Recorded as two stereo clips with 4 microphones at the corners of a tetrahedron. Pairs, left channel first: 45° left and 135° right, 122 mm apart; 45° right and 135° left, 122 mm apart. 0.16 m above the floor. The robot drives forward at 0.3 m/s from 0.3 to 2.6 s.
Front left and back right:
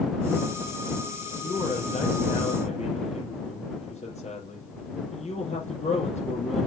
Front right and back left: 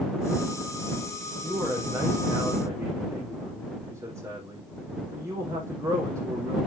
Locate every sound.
1.4 s a man speaking: 65° left, 6 m; by 6.7 s 70° left, 6 m